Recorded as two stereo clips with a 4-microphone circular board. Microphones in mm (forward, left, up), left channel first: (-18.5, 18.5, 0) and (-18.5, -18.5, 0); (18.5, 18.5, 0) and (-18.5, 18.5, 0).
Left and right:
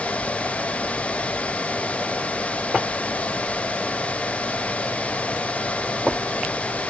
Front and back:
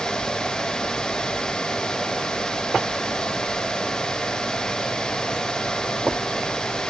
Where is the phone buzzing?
I don't hear a phone buzzing.